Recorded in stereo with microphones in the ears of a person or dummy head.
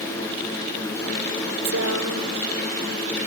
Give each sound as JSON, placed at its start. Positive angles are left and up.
{"t": 1.6, "sound": "a woman speaking", "side_deg": -75}